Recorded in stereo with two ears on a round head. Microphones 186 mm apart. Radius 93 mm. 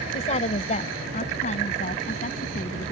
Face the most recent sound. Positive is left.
turn(degrees=40)  # may be behind; listen again after turning